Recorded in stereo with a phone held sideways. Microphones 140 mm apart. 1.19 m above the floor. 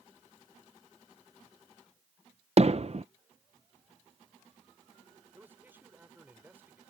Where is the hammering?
50° right (ahead or behind).